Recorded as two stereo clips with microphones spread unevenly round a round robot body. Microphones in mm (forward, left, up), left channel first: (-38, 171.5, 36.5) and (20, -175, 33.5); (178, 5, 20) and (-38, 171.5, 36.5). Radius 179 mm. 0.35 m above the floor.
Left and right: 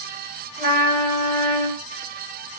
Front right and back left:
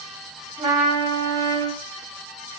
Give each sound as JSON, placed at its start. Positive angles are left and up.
{"t": 0.6, "sound": "a trumpet", "azimuth_deg": -140, "distance_m": 1.6}